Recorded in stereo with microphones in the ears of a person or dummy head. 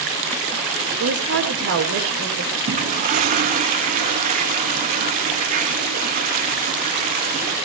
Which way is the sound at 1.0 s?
70° right (ahead or behind).